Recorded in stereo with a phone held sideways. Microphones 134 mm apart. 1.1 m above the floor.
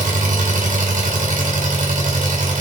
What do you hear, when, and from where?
0.0 s an engine running: 85° right, 4 m